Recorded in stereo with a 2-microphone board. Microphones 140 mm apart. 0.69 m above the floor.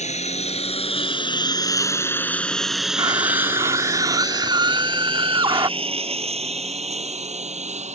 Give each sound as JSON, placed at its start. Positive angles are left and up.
{"t": 0.0, "sound": "a lawn mower", "side_deg": 55}
{"t": 3.0, "sound": "a scream", "side_deg": -35}